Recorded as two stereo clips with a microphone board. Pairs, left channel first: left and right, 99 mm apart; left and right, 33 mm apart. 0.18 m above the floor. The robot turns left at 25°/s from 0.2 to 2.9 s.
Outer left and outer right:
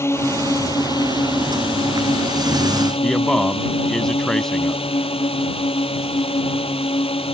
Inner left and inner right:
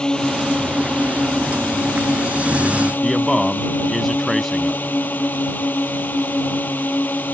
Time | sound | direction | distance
0.0 | a drone | 150° left | ?
3.0 | a man speaking | 5° left (ahead or behind) | ?